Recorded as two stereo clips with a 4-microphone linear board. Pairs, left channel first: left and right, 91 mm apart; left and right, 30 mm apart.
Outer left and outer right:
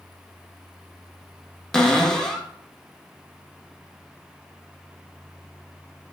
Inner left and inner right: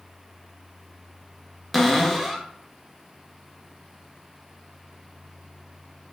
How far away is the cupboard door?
About 0.5 m.